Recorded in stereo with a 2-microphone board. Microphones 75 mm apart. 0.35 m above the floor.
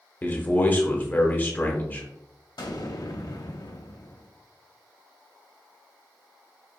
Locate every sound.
0.2 s a man speaking: 25° left (ahead or behind), 0.9 m
2.6 s an explosion: 60° left (ahead or behind), 0.6 m